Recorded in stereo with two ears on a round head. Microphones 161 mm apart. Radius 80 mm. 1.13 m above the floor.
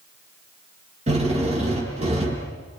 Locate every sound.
1.1 s a drill: 35° right (ahead or behind), 6 m